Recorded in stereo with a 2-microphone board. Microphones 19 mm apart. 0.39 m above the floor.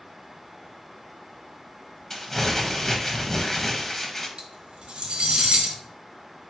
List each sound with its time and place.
2.1 s crumpling: 15° left (ahead or behind), 0.7 m
4.4 s cutlery clinking: 60° right (ahead or behind), 0.9 m